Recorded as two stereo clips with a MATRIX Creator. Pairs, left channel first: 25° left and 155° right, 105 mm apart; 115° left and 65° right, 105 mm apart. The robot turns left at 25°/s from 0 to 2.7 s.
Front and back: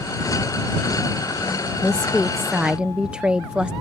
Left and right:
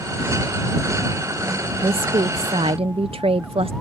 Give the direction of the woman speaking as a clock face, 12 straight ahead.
2 o'clock.